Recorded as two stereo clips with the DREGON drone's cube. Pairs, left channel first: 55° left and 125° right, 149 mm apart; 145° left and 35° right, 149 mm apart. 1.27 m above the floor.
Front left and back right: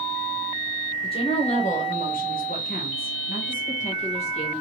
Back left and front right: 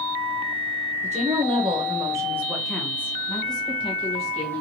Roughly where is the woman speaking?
Ahead.